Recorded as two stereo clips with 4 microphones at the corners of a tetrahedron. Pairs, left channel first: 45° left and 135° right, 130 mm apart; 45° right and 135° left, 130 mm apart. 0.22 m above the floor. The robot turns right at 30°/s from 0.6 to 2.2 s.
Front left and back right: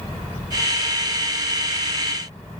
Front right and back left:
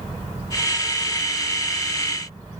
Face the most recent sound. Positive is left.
No sound to turn to.